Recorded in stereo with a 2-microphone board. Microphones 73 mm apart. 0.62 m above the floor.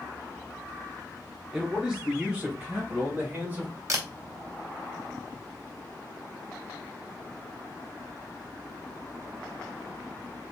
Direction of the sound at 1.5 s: Centre (ahead or behind).